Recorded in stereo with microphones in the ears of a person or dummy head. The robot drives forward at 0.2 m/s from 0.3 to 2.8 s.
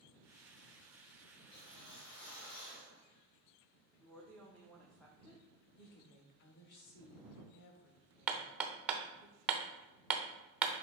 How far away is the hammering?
About 0.6 m.